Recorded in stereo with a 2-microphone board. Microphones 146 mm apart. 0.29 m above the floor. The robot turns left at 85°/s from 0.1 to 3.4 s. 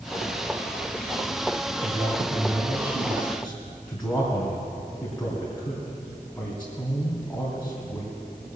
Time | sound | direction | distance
1.8 | a man speaking | 45° right (ahead or behind) | 2.5 m